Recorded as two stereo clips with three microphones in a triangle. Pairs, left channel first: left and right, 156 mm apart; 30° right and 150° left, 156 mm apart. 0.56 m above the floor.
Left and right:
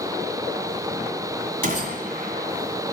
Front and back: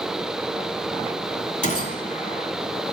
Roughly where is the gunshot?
Ahead right.